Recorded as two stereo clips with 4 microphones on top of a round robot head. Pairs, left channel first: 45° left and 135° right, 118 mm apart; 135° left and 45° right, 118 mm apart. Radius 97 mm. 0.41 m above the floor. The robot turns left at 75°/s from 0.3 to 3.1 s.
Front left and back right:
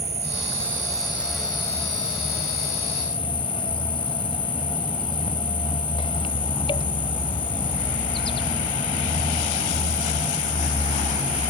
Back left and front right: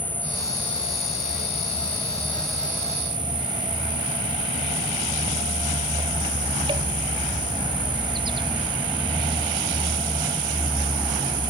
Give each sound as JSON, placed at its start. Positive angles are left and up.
{"t": 0.0, "sound": "an insect", "azimuth_deg": -150}